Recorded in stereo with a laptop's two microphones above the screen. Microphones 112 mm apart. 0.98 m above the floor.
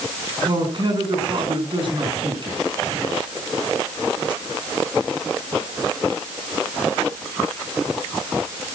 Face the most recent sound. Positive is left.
turn(degrees=-45)  # may be behind; listen again after turning